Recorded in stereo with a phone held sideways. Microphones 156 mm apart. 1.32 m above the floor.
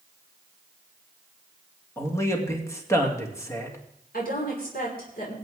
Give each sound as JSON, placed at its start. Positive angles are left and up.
{"t": 2.0, "sound": "a man speaking", "side_deg": 20, "distance_m": 2.5}
{"t": 4.1, "sound": "a woman speaking", "side_deg": 75, "distance_m": 5.0}